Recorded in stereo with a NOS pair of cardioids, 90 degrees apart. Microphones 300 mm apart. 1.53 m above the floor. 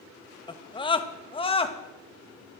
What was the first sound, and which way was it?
A scream, 15° left.